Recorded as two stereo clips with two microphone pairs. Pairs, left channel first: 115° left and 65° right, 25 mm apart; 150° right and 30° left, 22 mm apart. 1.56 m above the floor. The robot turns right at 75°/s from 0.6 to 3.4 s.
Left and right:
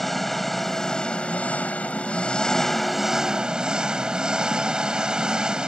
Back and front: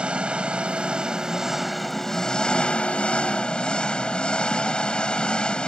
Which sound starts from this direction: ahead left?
An engine running, at 0.0 s.